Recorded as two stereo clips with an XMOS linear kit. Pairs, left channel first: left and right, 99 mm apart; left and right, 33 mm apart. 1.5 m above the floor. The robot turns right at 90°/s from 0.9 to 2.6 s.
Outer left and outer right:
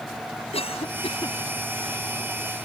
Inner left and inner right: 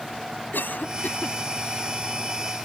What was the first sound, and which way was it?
A cough, 85° left.